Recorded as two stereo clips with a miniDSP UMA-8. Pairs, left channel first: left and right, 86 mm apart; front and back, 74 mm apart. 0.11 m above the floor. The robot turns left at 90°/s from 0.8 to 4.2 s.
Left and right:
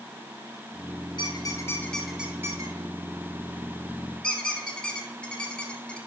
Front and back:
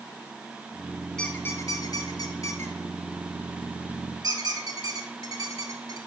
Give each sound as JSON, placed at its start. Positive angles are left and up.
{"t": 1.2, "sound": "a squeak", "azimuth_deg": 80, "distance_m": 1.3}